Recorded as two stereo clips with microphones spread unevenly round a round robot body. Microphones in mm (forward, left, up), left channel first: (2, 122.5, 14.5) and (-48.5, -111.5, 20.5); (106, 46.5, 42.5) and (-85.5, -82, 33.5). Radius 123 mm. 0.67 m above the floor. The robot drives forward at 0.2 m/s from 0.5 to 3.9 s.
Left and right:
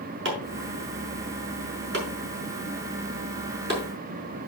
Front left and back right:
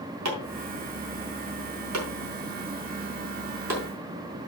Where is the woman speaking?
No woman speaking in this recording.